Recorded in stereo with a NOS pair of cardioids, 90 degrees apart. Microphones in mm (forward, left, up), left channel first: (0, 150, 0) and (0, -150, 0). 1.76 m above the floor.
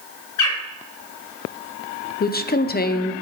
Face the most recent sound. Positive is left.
turn(degrees=30)